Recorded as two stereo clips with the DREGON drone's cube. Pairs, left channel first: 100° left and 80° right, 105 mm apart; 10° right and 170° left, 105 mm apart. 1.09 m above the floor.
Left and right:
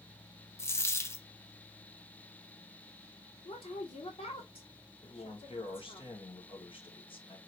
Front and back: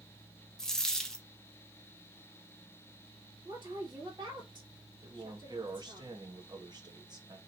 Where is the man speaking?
125° left, 1.7 m.